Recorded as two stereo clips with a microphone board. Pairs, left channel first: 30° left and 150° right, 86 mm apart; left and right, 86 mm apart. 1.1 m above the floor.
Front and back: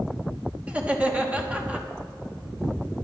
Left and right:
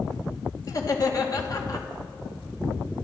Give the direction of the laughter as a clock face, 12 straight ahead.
8 o'clock.